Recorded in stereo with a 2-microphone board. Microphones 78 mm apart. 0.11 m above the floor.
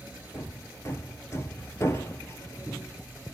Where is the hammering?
35° left (ahead or behind), 1.3 m.